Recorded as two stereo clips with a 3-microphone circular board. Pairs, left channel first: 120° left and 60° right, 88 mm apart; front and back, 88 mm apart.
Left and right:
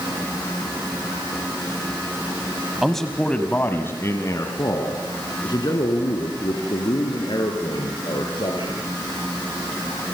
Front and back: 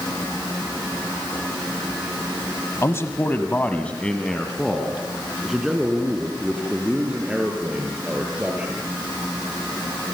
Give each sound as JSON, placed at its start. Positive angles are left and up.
{"t": 2.8, "sound": "a man speaking", "azimuth_deg": 30, "distance_m": 1.4}